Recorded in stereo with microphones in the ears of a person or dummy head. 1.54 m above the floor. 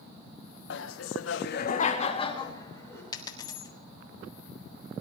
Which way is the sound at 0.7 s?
75° left (ahead or behind).